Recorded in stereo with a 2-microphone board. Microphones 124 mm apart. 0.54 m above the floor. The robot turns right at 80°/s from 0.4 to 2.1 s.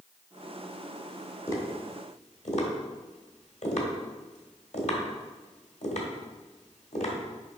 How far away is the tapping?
About 1.6 m.